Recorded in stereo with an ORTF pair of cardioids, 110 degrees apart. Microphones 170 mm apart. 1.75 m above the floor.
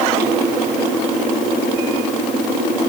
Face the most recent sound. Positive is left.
No sound to turn to.